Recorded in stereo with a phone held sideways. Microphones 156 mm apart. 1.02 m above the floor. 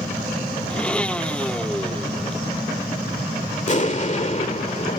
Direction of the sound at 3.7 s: 45° left (ahead or behind).